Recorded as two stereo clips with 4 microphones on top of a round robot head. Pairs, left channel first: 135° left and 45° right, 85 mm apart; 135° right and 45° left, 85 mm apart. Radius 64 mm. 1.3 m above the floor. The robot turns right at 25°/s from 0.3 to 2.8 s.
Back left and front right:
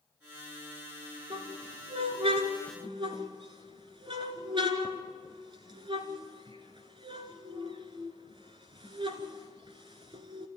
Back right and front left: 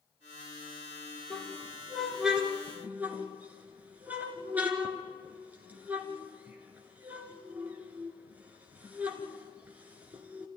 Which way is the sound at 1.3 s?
60° right.